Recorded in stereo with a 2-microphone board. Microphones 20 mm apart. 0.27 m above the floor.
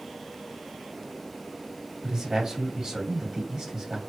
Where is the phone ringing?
I don't hear a phone ringing.